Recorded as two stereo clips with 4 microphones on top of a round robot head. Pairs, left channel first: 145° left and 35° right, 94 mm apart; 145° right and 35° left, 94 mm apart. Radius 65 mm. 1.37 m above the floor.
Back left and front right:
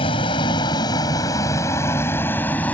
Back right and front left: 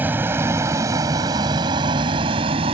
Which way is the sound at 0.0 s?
110° left.